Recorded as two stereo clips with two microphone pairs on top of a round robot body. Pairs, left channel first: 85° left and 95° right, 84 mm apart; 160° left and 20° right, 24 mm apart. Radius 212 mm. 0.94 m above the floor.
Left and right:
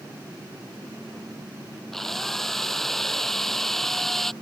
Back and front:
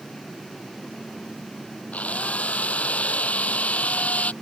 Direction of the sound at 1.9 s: 170° left.